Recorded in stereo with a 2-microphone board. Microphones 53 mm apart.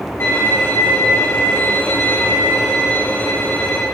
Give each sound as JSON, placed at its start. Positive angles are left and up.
{"t": 0.2, "sound": "a violin", "side_deg": 45, "distance_m": 8.0}